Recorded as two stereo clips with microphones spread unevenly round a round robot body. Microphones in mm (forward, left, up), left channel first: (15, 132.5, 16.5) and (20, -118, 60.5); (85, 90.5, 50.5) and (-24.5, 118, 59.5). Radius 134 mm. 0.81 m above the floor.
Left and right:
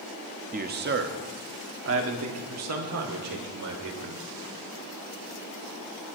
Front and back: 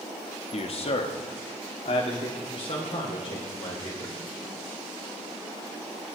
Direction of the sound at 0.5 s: 30° right.